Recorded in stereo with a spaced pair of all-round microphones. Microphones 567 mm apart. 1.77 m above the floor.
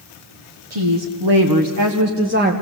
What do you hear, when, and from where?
0.7 s a woman speaking: 55° right (ahead or behind), 1.9 m; by 2.5 s 15° right (ahead or behind), 1.5 m